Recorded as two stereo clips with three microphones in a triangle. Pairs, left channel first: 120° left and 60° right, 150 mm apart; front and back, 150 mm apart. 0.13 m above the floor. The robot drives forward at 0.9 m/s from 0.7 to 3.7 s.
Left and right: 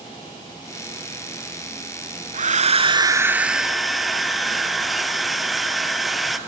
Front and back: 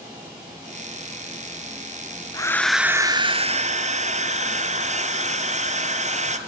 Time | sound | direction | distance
2.3 | a hair dryer | 55° right | 0.8 m